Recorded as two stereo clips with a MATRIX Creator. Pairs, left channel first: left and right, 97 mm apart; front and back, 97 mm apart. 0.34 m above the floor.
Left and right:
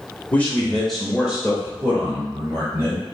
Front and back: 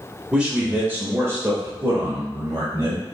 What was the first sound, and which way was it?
A man speaking, 115° left.